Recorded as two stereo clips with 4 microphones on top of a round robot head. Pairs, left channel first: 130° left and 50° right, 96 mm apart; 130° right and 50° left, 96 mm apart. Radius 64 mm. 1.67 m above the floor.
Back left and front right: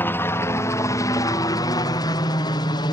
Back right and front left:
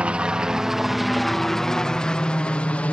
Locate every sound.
0.0 s a helicopter: 110° left; by 2.9 s 160° left